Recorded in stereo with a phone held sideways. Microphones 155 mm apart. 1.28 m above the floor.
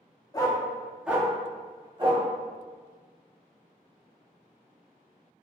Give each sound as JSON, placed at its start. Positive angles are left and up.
{"t": 0.3, "sound": "a dog barking", "side_deg": 25, "distance_m": 0.8}